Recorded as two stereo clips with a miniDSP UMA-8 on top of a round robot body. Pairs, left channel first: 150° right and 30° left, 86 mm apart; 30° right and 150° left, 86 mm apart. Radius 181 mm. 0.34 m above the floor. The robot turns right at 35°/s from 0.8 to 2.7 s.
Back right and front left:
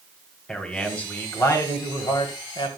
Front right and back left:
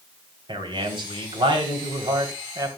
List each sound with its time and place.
0.5 s a man speaking: 130° left, 3 m; by 2.8 s 160° right, 3 m